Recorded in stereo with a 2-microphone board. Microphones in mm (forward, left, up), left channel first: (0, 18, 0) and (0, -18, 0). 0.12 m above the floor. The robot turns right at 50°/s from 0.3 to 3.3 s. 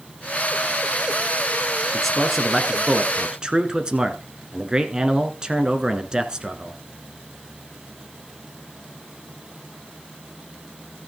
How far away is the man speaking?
About 1.1 m.